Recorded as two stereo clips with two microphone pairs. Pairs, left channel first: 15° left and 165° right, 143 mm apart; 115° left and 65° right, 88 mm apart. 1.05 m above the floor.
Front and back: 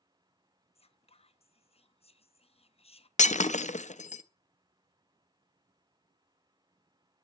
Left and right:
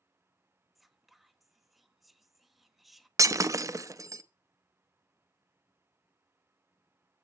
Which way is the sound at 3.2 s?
15° right.